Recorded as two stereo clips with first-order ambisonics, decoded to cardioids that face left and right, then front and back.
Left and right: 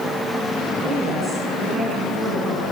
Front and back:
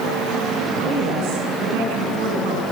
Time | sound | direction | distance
0.8 | a woman speaking | 160° right | 7 m